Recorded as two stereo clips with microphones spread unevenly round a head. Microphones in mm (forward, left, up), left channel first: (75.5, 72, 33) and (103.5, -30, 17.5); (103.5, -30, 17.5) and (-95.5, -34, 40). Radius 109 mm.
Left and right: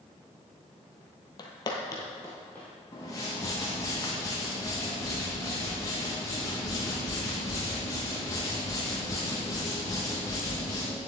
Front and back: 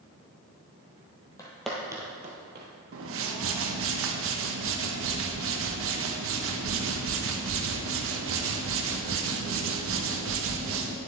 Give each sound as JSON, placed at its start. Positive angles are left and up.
{"t": 1.4, "sound": "footsteps", "azimuth_deg": 80, "distance_m": 1.5}
{"t": 2.9, "sound": "a whoosh", "azimuth_deg": 175, "distance_m": 0.8}